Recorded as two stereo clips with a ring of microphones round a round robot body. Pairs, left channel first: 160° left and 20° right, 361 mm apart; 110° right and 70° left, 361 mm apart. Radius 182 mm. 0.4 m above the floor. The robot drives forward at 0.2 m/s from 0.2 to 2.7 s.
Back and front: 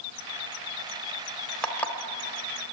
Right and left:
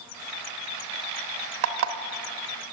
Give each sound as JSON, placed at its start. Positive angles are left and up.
{"t": 1.6, "sound": "an alarm clock", "azimuth_deg": 70, "distance_m": 1.0}